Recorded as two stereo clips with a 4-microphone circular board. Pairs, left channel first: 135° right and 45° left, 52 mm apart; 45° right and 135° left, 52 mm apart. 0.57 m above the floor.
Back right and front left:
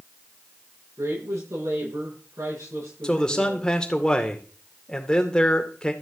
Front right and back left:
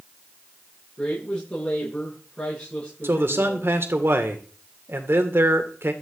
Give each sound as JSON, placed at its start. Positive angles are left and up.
{"t": 1.0, "sound": "a woman speaking", "azimuth_deg": 20, "distance_m": 9.5}
{"t": 3.0, "sound": "a man speaking", "azimuth_deg": 155, "distance_m": 2.0}